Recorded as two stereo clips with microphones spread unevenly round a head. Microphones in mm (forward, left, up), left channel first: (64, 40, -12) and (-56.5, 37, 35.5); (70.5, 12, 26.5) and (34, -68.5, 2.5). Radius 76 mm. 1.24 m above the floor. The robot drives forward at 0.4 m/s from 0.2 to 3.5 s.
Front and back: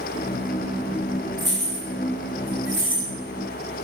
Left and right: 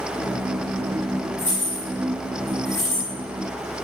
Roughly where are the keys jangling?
Left.